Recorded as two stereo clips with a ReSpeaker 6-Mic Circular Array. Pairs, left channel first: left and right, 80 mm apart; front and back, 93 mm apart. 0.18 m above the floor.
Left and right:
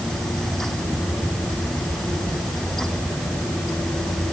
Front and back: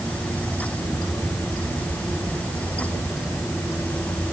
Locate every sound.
Only background noise.